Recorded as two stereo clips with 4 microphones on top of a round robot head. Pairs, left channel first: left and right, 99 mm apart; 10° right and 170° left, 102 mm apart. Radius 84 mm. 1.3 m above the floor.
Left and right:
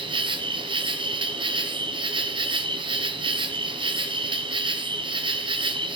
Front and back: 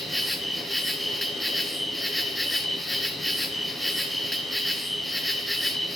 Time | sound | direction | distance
0.0 | an insect | 100° right | 1.1 m